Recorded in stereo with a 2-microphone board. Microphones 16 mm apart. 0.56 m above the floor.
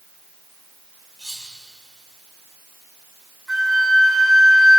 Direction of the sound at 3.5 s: 35° right (ahead or behind).